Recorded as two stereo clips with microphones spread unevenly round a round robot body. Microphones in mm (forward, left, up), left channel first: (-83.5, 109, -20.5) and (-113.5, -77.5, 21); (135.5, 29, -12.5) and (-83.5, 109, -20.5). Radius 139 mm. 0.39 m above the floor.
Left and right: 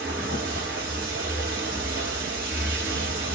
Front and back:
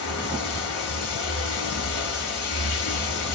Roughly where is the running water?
Ahead.